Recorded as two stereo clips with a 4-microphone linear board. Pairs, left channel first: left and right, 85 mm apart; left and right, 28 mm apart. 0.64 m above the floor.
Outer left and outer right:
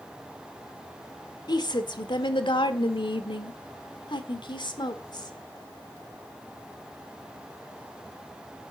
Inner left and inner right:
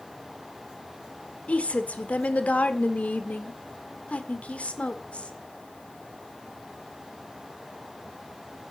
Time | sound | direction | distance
1.5 | a woman speaking | 50° left (ahead or behind) | 1.8 m